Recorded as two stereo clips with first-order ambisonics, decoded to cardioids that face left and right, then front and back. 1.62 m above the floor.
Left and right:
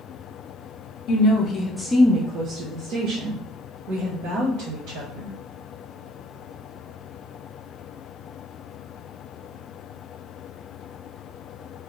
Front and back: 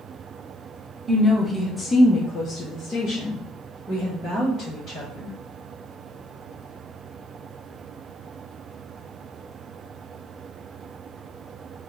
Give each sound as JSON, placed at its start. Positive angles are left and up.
{"t": 1.1, "sound": "a woman speaking", "azimuth_deg": 100, "distance_m": 0.7}